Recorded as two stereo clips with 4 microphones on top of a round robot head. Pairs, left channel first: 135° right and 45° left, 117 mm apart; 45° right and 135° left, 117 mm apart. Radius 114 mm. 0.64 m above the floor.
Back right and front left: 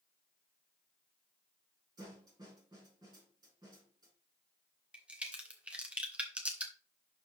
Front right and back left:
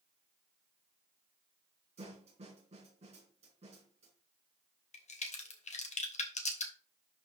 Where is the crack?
35° right, 1.6 m.